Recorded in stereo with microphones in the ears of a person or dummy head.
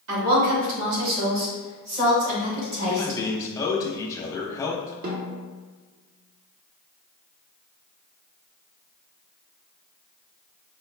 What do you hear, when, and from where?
0.1 s a woman speaking: 70° right (ahead or behind), 1.3 m; by 3.2 s 65° right (ahead or behind), 4 m
2.9 s a man speaking: 20° left (ahead or behind), 0.8 m
5.0 s a snare drum: 50° right (ahead or behind), 0.9 m